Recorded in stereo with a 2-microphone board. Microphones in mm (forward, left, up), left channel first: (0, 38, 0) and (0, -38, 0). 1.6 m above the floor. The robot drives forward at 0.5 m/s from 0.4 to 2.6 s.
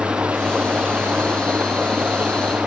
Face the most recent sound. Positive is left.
turn(degrees=-20)  # may be behind; listen again after turning